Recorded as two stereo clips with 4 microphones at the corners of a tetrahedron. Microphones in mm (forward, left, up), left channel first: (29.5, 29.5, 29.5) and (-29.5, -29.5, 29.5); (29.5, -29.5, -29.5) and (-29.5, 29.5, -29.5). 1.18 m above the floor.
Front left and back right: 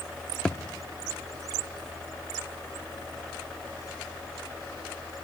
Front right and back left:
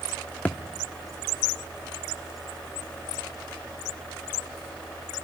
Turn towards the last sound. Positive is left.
turn(degrees=-15)